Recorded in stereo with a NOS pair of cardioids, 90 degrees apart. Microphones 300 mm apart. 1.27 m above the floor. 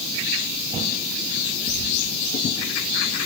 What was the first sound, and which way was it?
A bird, 70° right.